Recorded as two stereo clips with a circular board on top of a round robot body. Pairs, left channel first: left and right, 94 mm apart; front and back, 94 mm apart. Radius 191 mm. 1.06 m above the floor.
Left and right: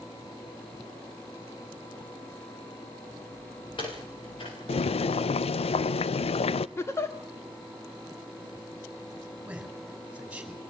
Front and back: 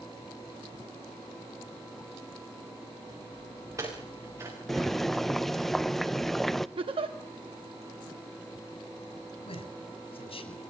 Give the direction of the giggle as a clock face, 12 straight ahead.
7 o'clock.